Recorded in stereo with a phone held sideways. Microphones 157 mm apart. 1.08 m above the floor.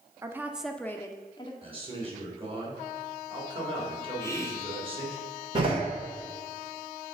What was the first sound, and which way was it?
A woman speaking, 20° right (ahead or behind).